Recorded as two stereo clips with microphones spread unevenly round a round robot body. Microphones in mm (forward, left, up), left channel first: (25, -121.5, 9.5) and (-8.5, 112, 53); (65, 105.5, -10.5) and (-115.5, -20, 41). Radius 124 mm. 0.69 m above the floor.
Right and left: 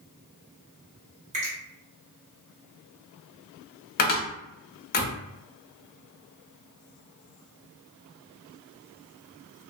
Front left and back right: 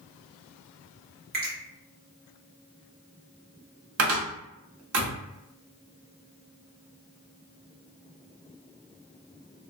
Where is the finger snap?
165° left, 1.2 m.